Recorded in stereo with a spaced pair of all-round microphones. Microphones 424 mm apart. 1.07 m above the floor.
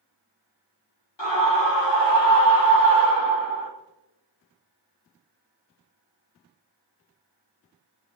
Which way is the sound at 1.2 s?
75° left (ahead or behind).